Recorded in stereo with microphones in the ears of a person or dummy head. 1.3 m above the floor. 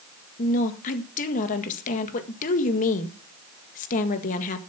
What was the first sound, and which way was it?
A woman speaking, 50° left (ahead or behind).